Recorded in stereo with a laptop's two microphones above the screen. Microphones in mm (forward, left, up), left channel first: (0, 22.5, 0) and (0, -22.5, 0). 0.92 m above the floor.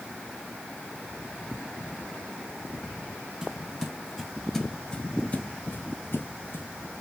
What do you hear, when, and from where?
3.4 s footsteps: 20° right (ahead or behind), 1.8 m; by 6.7 s 50° left (ahead or behind), 1.6 m